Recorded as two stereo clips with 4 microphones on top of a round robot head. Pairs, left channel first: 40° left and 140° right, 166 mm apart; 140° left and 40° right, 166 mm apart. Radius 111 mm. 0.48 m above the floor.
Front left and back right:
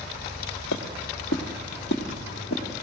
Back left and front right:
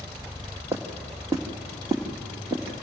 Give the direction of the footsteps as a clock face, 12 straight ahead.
11 o'clock.